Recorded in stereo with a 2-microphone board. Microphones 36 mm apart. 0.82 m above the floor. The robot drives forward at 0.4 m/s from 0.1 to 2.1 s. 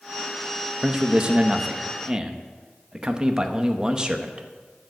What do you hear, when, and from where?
0.8 s a man speaking: 25° right (ahead or behind), 0.8 m; by 4.5 s 20° right (ahead or behind), 0.9 m